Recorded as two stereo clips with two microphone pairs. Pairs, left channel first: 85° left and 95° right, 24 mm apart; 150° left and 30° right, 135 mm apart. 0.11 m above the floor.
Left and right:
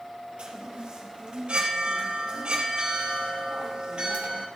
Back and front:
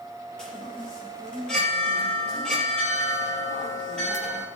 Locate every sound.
0.4 s a chime: 125° right, 3 m